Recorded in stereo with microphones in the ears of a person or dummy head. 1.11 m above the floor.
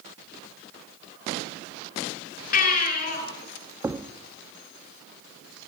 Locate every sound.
2.5 s a baby crying: 45° left (ahead or behind), 5 m
3.8 s a thud: 10° right (ahead or behind), 0.8 m